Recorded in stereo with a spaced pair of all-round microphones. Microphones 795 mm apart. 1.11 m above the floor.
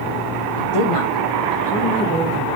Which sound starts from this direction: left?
A woman speaking, at 0.6 s.